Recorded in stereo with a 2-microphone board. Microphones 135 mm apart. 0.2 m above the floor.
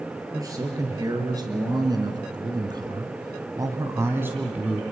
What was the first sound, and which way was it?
A man speaking, 25° right (ahead or behind).